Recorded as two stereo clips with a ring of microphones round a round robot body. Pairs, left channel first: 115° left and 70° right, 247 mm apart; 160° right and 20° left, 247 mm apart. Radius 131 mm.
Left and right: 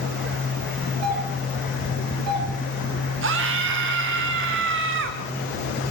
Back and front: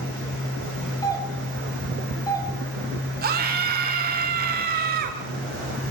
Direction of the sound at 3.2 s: 30° right.